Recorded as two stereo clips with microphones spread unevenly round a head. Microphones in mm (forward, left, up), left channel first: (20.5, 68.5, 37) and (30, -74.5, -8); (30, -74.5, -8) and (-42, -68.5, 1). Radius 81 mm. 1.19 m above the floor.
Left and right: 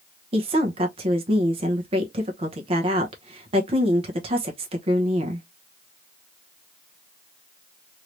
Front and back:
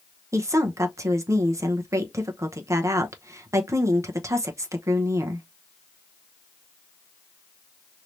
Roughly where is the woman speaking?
Behind right.